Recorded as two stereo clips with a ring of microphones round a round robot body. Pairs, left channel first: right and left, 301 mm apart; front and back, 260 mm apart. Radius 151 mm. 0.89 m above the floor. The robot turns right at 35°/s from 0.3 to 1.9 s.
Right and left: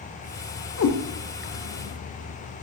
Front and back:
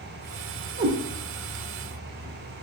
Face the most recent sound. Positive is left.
turn(degrees=-90)